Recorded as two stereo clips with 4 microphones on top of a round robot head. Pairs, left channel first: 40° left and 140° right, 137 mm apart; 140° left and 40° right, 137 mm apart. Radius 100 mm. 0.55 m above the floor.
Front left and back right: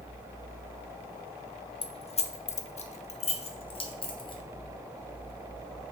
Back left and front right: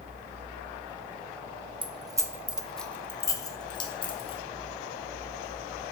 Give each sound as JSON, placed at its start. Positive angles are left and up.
{"t": 1.8, "sound": "keys jangling", "azimuth_deg": 0, "distance_m": 0.7}